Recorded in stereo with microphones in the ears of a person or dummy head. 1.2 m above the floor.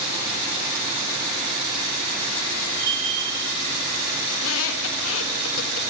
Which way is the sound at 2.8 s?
75° right (ahead or behind).